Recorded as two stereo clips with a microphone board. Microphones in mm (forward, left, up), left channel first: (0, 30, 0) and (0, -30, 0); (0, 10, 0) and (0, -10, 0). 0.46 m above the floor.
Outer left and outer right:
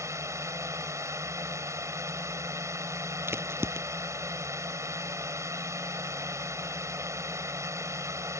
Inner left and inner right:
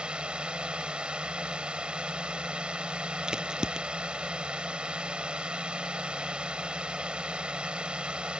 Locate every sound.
0.0 s a drone: 55° right (ahead or behind)
3.3 s a crack: 40° right (ahead or behind)